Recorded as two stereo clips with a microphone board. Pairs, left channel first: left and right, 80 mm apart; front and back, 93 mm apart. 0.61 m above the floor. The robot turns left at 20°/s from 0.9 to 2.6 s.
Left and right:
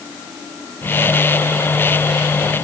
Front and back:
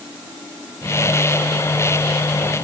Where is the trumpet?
No trumpet in this recording.